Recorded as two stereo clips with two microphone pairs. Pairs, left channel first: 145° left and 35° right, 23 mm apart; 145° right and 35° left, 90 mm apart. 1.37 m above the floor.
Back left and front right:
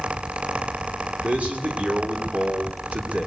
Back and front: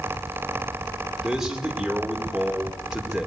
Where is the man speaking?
55° right, 4 m.